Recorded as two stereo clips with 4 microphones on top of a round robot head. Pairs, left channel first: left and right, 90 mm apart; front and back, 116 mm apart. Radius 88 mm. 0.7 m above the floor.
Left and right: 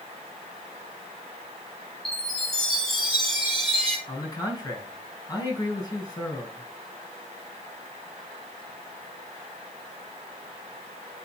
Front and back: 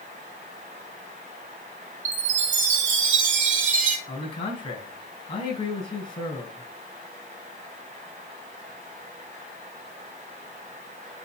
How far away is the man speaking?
About 5 m.